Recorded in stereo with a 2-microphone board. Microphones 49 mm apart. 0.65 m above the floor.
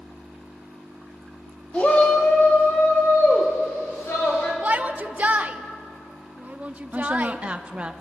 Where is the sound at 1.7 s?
25° left (ahead or behind), 1.3 m; by 4.5 s 60° left (ahead or behind), 4 m.